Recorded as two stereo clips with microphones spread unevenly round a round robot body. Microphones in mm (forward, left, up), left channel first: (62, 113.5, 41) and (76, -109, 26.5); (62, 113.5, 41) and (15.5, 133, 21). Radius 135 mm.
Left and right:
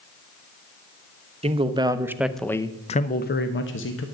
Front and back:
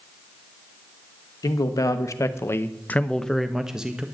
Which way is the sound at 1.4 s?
30° right.